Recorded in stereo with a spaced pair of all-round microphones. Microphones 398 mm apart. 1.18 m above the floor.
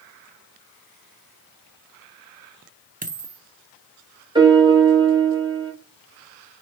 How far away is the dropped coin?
About 0.8 m.